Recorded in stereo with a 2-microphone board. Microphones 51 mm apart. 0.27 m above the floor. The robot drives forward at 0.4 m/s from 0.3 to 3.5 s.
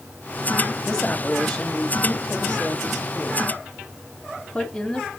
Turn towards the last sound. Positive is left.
turn(degrees=15)  # may be behind; listen again after turning